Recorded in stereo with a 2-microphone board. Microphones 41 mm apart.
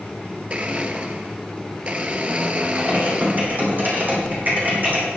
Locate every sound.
0.5 s a blender: 30° right (ahead or behind), 0.9 m
2.8 s typing on a keyboard: 45° right (ahead or behind), 4.5 m